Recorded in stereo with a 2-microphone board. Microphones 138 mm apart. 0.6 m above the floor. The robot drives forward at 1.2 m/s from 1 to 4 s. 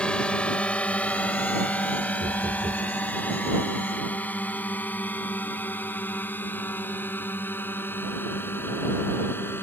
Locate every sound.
0.0 s a drone: 5° left (ahead or behind); by 9.6 s 15° left (ahead or behind)
2.2 s knocking: 70° right (ahead or behind); by 2.9 s 55° right (ahead or behind)